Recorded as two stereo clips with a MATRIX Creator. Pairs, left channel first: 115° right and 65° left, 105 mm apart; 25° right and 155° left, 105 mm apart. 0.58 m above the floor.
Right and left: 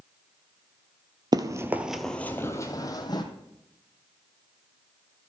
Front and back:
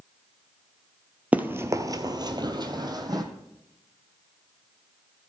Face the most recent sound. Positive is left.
turn(degrees=-155)